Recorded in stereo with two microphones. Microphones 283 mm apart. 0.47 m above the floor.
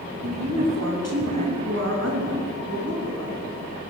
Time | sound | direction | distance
0.2 | a woman speaking | 60° right (ahead or behind) | 2.5 m